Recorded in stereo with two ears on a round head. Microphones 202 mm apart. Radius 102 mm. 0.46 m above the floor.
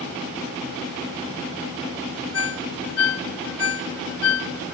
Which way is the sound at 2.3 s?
65° left (ahead or behind).